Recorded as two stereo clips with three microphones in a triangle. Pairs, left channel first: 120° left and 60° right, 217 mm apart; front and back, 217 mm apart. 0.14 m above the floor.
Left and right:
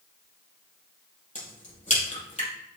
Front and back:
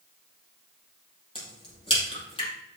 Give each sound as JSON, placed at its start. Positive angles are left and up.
{"t": 1.4, "sound": "a crack", "azimuth_deg": 65, "distance_m": 4.5}